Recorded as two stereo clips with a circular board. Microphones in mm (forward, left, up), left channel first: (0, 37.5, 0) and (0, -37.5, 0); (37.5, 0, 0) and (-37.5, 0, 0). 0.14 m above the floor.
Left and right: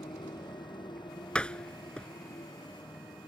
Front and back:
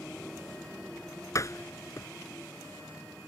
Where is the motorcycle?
80° left; by 3.3 s 85° left.